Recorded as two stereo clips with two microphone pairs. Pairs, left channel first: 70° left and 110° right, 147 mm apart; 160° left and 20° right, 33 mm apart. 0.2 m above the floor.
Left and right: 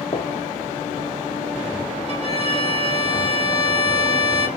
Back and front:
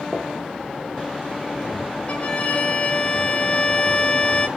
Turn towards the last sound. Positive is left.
turn(degrees=-155)